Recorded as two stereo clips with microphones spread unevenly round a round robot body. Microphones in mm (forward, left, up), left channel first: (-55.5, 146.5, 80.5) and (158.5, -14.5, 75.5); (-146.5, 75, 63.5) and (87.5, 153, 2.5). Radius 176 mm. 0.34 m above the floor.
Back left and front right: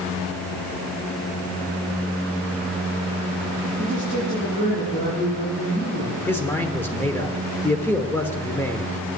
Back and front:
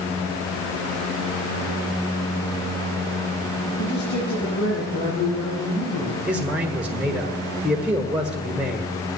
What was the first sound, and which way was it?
A man speaking, 155° right.